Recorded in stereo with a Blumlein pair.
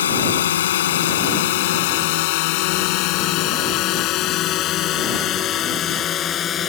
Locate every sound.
0.0 s a drone: 65° left; by 6.7 s 25° left